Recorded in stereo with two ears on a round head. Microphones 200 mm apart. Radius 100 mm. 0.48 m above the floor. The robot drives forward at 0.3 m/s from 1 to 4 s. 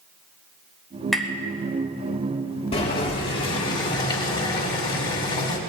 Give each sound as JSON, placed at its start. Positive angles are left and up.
{"t": 1.1, "sound": "tapping", "side_deg": 0, "distance_m": 1.2}
{"t": 2.7, "sound": "boiling", "side_deg": 25, "distance_m": 2.0}